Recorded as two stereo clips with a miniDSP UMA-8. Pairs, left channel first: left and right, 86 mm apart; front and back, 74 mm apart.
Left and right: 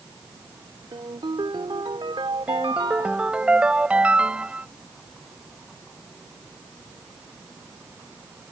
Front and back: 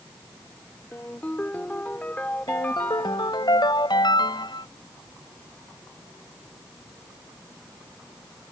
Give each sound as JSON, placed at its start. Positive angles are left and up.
{"t": 0.9, "sound": "a ringtone", "azimuth_deg": -70}
{"t": 2.5, "sound": "a ringtone", "azimuth_deg": -15}